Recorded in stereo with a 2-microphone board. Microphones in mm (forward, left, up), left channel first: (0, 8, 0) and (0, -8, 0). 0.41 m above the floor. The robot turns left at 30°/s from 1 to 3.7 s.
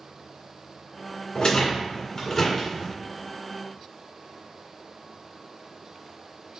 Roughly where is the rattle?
Left.